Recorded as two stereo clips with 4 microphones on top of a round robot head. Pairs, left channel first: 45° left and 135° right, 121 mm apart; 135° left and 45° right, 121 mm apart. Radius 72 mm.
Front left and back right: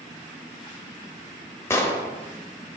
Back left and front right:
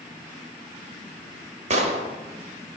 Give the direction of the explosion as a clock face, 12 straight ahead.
1 o'clock.